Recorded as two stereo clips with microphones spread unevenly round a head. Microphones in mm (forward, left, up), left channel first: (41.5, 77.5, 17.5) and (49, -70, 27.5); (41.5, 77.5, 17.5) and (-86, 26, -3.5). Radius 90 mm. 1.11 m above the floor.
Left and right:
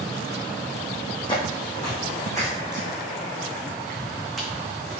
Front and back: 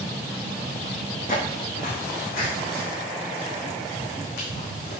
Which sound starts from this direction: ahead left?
Footsteps, at 1.3 s.